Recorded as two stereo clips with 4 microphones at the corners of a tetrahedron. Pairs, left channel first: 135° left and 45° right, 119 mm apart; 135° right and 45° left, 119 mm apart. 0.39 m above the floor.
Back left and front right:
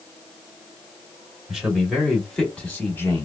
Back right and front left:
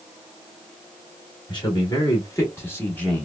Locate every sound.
1.5 s a man speaking: 125° right, 1.6 m; by 3.2 s 155° left, 1.3 m